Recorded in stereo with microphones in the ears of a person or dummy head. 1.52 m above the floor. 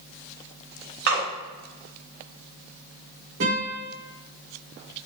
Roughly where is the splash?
Right.